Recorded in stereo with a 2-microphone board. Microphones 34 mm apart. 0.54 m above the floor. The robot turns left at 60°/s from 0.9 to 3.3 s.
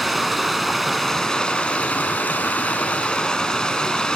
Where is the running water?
Straight behind, 0.8 m; by 4.2 s 35° left, 0.8 m.